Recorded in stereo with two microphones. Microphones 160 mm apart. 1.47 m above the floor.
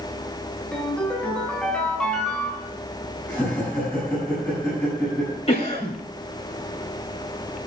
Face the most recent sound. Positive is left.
turn(degrees=40)  # may be behind; listen again after turning